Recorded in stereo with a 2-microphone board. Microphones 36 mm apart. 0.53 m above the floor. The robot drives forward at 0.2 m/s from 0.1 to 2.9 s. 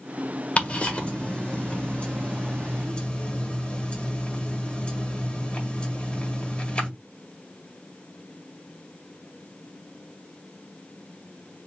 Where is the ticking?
35° left (ahead or behind), 1.5 m; by 6.9 s 30° left (ahead or behind), 1.9 m.